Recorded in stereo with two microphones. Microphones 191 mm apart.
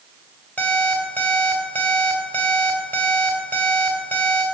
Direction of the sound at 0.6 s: 10° left (ahead or behind).